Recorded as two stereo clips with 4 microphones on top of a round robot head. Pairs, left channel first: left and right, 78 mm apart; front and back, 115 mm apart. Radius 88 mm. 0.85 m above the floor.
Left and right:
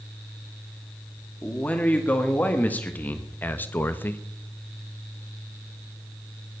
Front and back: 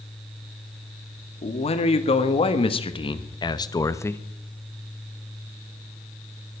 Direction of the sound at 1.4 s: 15° left.